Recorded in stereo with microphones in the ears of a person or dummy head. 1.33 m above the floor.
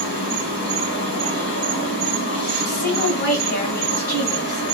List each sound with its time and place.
0.0 s an insect: 40° left (ahead or behind), 2 m
2.6 s a woman speaking: 45° left (ahead or behind), 1.4 m